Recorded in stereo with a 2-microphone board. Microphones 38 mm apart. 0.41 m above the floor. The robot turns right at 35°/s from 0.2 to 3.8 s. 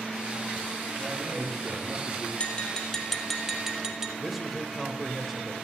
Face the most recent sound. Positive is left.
turn(degrees=-5)  # may be behind; listen again after turning